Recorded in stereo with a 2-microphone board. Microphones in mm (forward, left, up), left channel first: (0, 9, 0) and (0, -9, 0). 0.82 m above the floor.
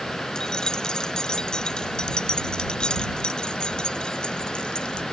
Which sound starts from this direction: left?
Keys jangling, at 0.3 s.